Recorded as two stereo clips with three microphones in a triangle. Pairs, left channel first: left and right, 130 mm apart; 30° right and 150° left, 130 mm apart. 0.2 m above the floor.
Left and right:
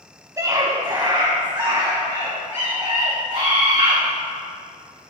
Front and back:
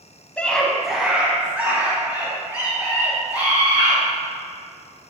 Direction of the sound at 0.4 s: 95° right.